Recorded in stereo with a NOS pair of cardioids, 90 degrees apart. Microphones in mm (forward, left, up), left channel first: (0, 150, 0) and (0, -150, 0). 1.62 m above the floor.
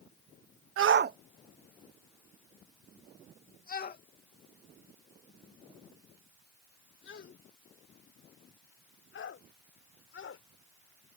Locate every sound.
0.8 s a shout: 50° right; by 10.4 s 45° left